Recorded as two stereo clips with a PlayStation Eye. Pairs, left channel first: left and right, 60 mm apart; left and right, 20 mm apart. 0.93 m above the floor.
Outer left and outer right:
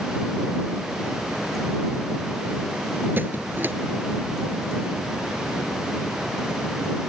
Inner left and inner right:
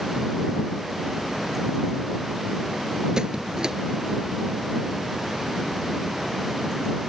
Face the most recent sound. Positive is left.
turn(degrees=-35)  # may be behind; listen again after turning